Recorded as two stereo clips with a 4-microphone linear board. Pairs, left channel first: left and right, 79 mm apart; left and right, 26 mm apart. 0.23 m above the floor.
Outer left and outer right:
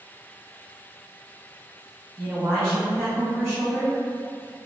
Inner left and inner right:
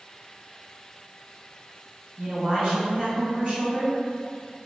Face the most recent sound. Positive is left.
turn(degrees=-15)  # may be behind; listen again after turning